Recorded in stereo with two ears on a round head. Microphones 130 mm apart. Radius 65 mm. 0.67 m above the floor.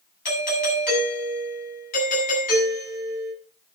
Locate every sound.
0.2 s a doorbell: 65° left (ahead or behind), 8.5 m